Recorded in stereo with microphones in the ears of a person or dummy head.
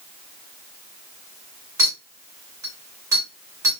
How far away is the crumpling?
I don't hear crumpling.